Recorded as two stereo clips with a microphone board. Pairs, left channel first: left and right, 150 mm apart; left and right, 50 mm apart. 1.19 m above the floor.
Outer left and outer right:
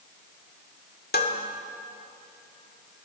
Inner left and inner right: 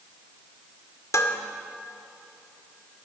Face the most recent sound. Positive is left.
turn(degrees=80)